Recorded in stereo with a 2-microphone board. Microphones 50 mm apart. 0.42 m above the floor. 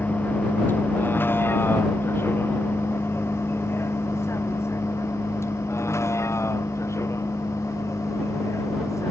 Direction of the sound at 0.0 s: 35° left (ahead or behind).